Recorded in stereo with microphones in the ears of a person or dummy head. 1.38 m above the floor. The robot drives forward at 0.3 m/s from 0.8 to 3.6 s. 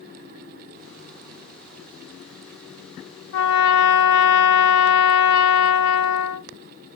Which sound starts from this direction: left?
A trumpet, at 3.3 s.